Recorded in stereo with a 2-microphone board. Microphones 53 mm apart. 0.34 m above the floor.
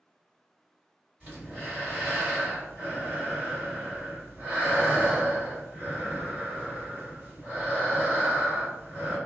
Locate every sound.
1.2 s breathing: 30° right (ahead or behind), 2.0 m